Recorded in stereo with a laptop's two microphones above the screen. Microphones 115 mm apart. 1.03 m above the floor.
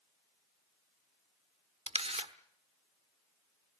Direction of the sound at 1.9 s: 70° right (ahead or behind).